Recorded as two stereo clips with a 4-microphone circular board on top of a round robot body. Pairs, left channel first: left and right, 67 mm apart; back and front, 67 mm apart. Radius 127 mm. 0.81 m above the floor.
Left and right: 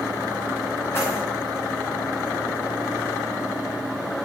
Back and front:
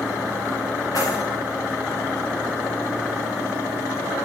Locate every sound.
0.9 s keys jangling: 145° left, 6 m